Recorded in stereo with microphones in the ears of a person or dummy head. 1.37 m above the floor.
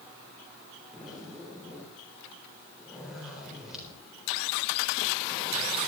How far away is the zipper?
About 4 m.